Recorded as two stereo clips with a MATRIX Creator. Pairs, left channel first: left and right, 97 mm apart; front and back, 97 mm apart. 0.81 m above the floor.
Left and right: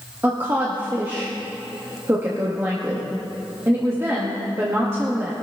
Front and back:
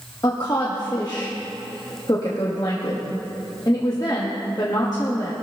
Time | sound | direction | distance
0.2 | a woman speaking | 30° right | 1.4 m